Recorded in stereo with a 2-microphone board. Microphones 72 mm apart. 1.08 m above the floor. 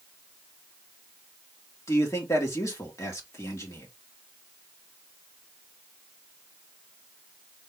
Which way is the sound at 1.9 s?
45° left (ahead or behind).